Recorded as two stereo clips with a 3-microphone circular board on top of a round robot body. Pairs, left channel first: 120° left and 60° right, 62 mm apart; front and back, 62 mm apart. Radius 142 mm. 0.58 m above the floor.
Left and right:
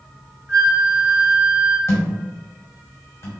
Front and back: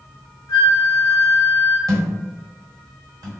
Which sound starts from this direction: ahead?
A flute, at 0.5 s.